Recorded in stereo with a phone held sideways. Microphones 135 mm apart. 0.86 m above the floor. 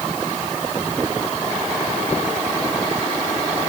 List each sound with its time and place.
Only background noise.